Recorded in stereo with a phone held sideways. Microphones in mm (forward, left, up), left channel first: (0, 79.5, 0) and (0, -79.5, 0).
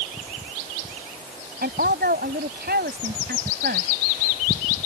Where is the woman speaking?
85° right.